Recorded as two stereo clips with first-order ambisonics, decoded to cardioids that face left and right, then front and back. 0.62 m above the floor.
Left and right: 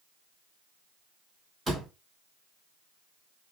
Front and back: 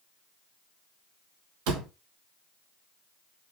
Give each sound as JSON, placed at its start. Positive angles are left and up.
{"t": 1.7, "sound": "a door slam", "azimuth_deg": -170, "distance_m": 3.5}